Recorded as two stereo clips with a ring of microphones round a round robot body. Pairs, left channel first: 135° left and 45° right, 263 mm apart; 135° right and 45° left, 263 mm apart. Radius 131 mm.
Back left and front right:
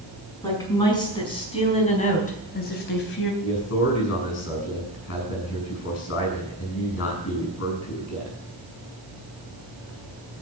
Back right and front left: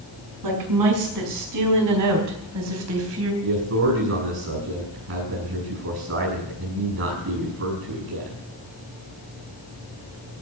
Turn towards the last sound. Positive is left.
turn(degrees=90)